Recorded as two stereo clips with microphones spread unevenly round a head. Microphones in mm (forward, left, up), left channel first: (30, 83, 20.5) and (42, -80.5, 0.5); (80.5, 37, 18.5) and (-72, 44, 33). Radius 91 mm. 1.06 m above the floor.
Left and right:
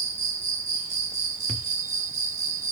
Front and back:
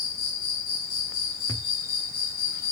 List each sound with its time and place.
0.0 s an insect: 40° right, 1.3 m
1.5 s a thud: 65° left, 0.7 m